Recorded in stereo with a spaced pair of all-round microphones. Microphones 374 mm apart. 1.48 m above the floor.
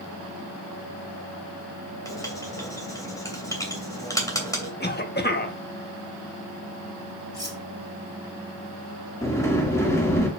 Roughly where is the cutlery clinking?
Centre.